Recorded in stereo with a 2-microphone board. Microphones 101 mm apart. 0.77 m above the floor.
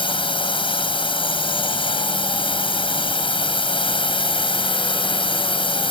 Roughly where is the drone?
Left.